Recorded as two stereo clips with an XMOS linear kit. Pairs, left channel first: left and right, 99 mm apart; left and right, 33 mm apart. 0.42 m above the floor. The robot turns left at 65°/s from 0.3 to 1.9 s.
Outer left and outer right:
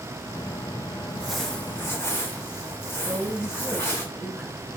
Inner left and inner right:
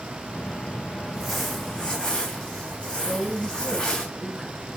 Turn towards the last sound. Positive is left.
turn(degrees=-15)  # may be behind; listen again after turning